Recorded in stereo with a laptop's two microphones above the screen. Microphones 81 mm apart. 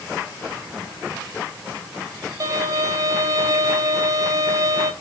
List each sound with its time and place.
2.4 s a violin: 45° right (ahead or behind), 0.7 m